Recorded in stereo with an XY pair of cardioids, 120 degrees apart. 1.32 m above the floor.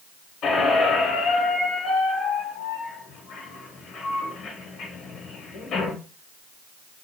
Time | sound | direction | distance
0.4 | a squeak | 60° left | 1.0 m